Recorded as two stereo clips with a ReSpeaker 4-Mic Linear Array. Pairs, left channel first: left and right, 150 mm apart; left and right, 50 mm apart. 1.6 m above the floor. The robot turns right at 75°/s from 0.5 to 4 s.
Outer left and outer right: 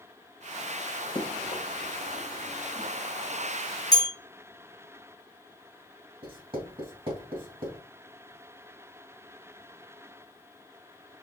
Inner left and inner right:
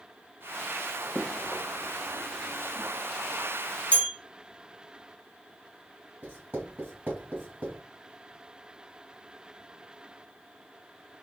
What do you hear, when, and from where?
1.1 s running footsteps: 30° left (ahead or behind), 1.8 m; by 2.9 s 5° right (ahead or behind), 1.6 m
3.9 s a bell: 25° left (ahead or behind), 1.5 m; by 4.1 s 20° left (ahead or behind), 1.5 m
6.2 s writing: 40° right (ahead or behind), 2.0 m